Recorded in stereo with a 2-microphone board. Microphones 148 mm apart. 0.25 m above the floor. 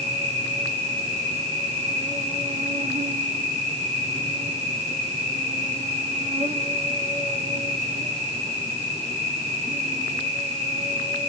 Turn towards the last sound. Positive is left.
turn(degrees=-50)  # may be behind; listen again after turning